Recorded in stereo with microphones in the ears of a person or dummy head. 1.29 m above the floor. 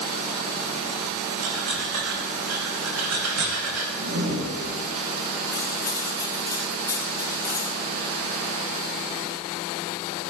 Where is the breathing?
75° right (ahead or behind), 2.5 m.